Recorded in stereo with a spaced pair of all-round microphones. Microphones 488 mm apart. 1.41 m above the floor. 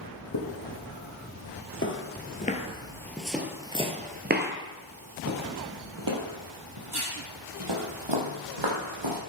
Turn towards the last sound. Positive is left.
turn(degrees=-65)  # may be behind; listen again after turning